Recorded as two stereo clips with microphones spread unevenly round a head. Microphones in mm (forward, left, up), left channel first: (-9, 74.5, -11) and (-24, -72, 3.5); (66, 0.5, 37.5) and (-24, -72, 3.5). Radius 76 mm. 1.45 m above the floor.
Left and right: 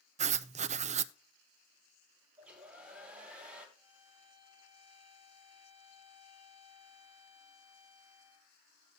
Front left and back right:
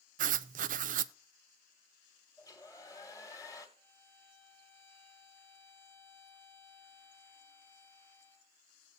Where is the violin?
25° right, 1.7 m.